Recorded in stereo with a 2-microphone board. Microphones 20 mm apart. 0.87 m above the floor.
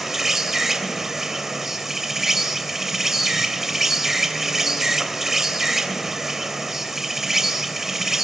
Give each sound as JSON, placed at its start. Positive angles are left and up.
{"t": 0.0, "sound": "an insect", "side_deg": -20, "distance_m": 3.0}